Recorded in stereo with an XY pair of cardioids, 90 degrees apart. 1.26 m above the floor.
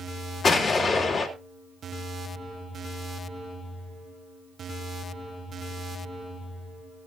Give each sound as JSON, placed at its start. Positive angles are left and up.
{"t": 0.4, "sound": "an explosion", "azimuth_deg": 50, "distance_m": 3.5}